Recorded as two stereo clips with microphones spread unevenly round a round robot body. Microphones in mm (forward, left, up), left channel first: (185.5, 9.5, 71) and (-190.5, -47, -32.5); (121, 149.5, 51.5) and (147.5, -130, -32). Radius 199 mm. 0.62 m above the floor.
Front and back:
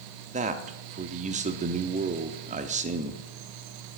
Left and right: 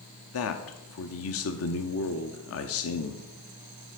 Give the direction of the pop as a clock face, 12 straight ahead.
I don't hear a pop.